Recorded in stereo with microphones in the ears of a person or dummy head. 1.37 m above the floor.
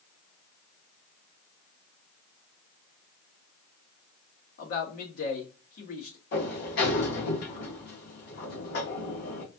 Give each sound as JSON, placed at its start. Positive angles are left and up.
{"t": 4.6, "sound": "a man speaking", "side_deg": 55, "distance_m": 1.7}
{"t": 6.3, "sound": "a sliding door", "side_deg": 60, "distance_m": 1.9}